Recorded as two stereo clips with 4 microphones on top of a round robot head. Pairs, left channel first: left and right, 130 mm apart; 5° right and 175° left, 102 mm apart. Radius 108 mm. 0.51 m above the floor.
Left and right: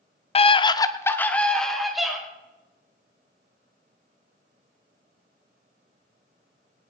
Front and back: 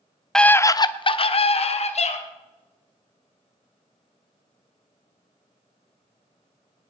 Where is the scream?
75° left, 0.8 m; by 2.2 s 5° right, 2 m.